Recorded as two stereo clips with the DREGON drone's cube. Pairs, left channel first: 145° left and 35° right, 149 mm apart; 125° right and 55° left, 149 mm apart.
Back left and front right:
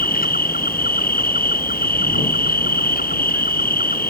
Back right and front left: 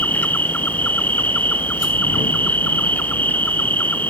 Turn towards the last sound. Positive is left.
turn(degrees=155)